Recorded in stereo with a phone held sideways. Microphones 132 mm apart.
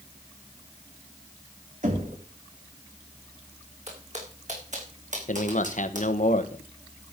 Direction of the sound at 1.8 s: 65° right (ahead or behind).